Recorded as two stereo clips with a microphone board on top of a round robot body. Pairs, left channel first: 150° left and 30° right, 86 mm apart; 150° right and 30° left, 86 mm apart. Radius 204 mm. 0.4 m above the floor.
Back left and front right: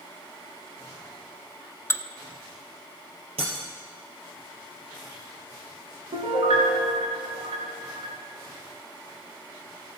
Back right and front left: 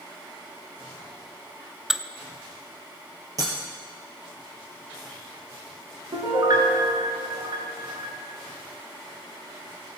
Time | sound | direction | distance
1.9 | dishes clattering | 110° left | 0.7 m
3.4 | breaking glass | 20° right | 2.5 m
6.1 | a piano | 15° right | 1.6 m